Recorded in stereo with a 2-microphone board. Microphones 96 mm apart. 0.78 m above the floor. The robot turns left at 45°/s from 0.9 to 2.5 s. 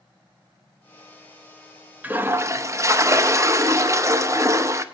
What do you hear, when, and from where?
2.0 s a toilet flushing: 15° right (ahead or behind), 0.5 m; by 4.8 s 30° right (ahead or behind), 0.5 m